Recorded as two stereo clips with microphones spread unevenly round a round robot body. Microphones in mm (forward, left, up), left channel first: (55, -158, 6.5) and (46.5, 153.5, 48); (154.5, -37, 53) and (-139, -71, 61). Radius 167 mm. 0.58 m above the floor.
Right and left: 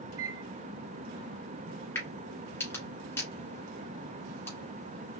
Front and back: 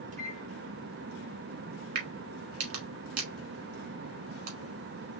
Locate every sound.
0.1 s a microwave: 125° left, 1.0 m
1.9 s a crack: 175° right, 1.6 m